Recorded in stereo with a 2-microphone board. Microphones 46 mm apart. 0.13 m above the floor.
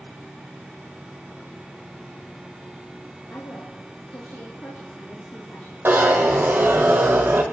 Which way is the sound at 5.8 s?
55° right (ahead or behind).